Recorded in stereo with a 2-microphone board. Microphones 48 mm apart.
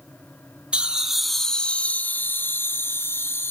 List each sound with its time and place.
0.7 s laughter: 20° right (ahead or behind), 0.8 m; by 3.5 s 55° left (ahead or behind), 1.4 m